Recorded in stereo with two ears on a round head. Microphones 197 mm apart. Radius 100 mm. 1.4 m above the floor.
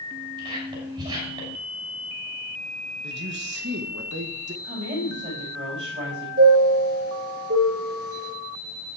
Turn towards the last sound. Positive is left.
turn(degrees=-45)  # may be behind; listen again after turning